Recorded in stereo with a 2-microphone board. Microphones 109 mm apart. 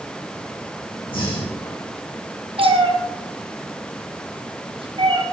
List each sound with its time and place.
1.1 s breathing: 50° left (ahead or behind), 6 m
2.6 s a cat meowing: 55° right (ahead or behind), 2.5 m